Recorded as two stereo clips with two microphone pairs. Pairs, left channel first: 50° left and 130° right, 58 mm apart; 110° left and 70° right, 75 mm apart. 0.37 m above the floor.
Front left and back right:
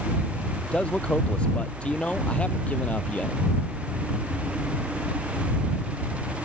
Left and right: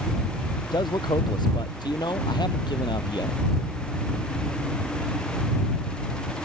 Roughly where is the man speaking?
Behind left.